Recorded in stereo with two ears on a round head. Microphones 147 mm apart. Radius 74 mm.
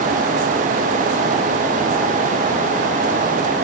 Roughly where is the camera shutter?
I don't hear a camera shutter.